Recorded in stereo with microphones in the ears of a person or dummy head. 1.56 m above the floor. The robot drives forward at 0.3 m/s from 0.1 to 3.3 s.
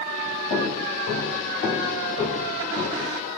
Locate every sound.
0.5 s footsteps: 45° left (ahead or behind), 2.5 m; by 3.1 s 35° left (ahead or behind), 3 m